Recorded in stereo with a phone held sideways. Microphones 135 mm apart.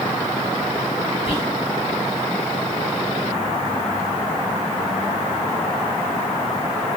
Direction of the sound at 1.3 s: 45° left (ahead or behind).